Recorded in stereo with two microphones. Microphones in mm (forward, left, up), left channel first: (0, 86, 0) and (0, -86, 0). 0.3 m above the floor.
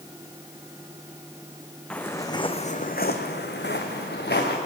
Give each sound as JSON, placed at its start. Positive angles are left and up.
{"t": 1.9, "sound": "footsteps", "side_deg": 5, "distance_m": 1.4}